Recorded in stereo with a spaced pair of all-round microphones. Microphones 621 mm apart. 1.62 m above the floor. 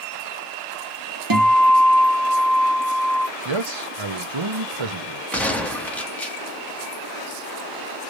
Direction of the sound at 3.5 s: 50° right (ahead or behind).